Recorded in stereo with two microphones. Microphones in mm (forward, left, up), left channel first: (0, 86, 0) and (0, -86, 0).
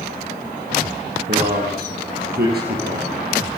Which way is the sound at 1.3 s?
60° right (ahead or behind).